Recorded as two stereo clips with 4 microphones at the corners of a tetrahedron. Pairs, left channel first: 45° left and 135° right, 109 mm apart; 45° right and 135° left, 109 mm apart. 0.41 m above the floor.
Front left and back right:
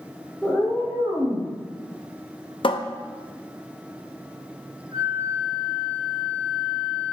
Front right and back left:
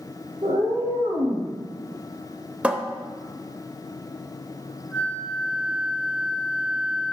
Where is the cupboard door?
60° left, 0.5 m.